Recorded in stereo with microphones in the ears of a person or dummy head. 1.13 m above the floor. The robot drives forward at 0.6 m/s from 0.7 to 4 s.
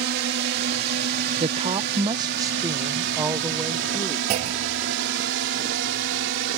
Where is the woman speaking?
30° right (ahead or behind); by 4.2 s 10° right (ahead or behind).